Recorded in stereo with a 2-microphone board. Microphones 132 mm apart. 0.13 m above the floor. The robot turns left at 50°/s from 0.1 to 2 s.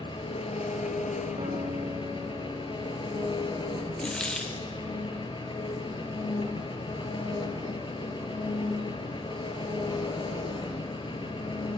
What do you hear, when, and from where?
0.0 s an engine running: 140° left, 0.9 m; by 11.8 s 45° left, 0.9 m
1.4 s a guitar: 130° right, 1.4 m; by 3.9 s 165° right, 1.4 m
4.0 s a dropped coin: 5° left (ahead or behind), 0.6 m